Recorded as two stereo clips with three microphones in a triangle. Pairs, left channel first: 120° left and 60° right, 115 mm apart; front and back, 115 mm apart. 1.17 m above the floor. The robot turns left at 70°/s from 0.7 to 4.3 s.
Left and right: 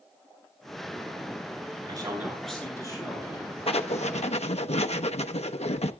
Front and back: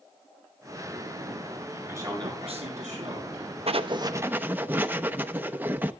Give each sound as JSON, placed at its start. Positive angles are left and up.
{"t": 1.9, "sound": "a man speaking", "azimuth_deg": -110, "distance_m": 9.0}
{"t": 3.7, "sound": "writing", "azimuth_deg": 150, "distance_m": 0.8}